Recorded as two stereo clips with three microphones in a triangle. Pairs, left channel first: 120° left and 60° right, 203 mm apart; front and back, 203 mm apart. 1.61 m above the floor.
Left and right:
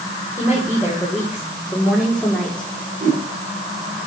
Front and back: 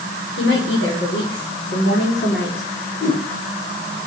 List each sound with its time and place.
0.4 s a woman speaking: 20° left, 5.5 m; by 2.7 s 35° left, 4 m
3.0 s a whoosh: 15° right, 8 m